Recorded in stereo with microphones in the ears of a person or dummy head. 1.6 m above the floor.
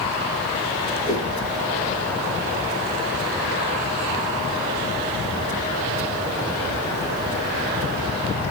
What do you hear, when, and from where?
1.1 s a whoosh: 15° left (ahead or behind), 6.5 m